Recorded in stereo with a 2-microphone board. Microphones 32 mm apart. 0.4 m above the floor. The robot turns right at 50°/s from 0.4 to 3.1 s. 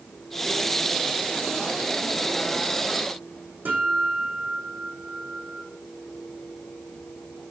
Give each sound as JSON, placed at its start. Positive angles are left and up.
{"t": 3.6, "sound": "a guitar", "side_deg": -60, "distance_m": 5.5}